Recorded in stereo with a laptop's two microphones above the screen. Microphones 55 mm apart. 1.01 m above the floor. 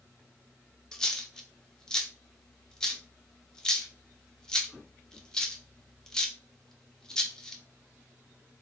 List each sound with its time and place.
0.9 s a dropped coin: 10° left (ahead or behind), 0.7 m